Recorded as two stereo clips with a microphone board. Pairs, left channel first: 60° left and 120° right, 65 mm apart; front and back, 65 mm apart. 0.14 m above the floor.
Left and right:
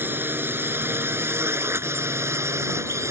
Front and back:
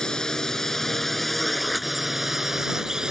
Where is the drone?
75° right; by 3.1 s 105° right.